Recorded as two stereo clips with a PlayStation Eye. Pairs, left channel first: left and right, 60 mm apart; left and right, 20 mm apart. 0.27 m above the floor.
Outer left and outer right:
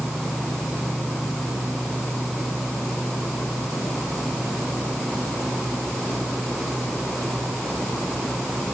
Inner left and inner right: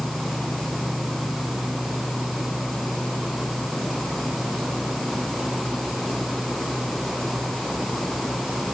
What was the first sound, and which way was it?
Only background noise.